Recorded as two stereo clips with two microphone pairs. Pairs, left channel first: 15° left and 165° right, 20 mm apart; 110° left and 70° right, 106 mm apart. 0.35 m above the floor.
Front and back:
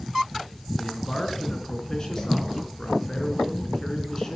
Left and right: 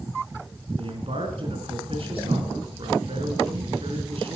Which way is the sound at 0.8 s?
45° right.